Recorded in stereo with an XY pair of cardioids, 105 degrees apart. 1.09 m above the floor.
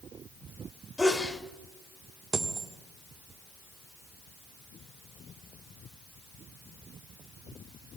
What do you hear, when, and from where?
1.0 s a sneeze: 20° left, 3 m
2.3 s a dropped coin: 30° right, 1.5 m